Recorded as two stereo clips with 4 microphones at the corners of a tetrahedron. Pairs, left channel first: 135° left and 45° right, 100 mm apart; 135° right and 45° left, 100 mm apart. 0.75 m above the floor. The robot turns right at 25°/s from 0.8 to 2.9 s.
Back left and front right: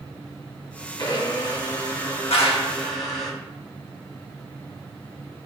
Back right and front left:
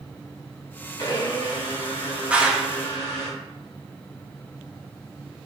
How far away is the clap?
About 0.9 m.